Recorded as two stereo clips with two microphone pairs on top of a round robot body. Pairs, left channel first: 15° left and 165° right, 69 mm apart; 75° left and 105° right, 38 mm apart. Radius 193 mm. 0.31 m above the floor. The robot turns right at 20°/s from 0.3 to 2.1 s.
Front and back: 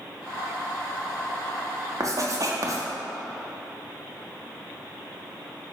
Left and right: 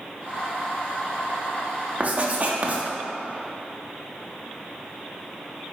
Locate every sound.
2.0 s writing: 145° right, 0.8 m; by 2.8 s 140° right, 0.8 m